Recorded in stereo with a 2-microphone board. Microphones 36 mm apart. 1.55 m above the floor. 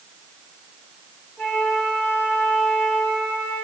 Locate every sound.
1.4 s a flute: 45° left (ahead or behind), 2 m